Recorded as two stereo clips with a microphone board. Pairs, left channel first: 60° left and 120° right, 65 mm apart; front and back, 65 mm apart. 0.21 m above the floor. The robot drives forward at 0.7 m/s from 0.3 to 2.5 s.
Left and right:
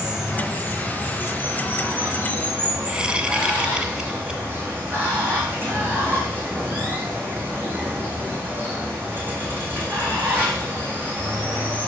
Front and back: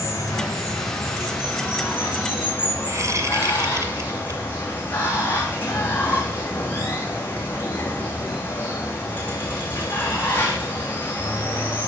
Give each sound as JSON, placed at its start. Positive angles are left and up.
{"t": 0.0, "sound": "running water", "azimuth_deg": -45, "distance_m": 4.5}
{"t": 2.9, "sound": "a whoosh", "azimuth_deg": 170, "distance_m": 1.2}